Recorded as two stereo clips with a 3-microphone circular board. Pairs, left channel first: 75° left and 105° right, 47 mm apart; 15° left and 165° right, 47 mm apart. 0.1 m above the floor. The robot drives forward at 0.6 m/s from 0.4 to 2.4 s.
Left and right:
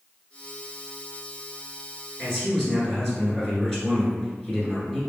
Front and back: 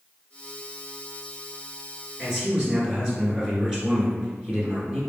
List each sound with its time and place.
2.2 s a man speaking: 135° left, 1.4 m; by 5.0 s 145° left, 1.4 m